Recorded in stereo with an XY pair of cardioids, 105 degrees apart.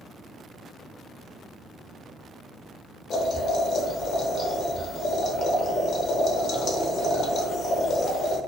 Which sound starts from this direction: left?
Boiling, at 3.1 s.